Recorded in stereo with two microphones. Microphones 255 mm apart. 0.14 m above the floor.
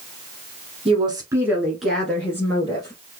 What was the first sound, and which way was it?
A woman speaking, 25° right (ahead or behind).